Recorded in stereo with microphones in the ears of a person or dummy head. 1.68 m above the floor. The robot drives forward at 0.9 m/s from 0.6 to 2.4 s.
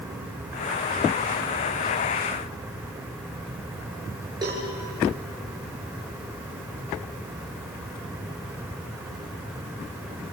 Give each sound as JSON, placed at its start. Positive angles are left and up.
{"t": 4.4, "sound": "a cowbell", "side_deg": -20, "distance_m": 6.5}